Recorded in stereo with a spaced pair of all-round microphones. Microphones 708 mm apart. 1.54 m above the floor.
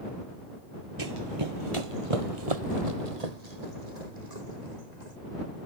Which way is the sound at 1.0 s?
30° right (ahead or behind).